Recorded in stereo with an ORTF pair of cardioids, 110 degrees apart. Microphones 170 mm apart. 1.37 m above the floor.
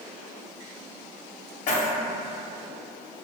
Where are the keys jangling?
45° left, 0.7 m.